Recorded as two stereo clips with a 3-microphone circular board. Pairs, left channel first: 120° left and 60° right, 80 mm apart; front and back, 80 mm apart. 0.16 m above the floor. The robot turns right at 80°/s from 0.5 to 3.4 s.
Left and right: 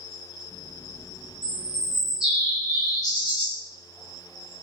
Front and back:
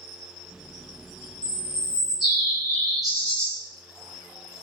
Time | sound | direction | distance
1.4 | a bird | 35° right | 1.9 m